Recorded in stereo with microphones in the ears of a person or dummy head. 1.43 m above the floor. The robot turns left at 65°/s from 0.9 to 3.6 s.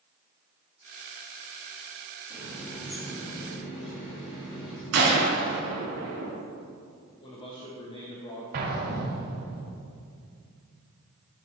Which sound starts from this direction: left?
A man speaking, at 7.2 s.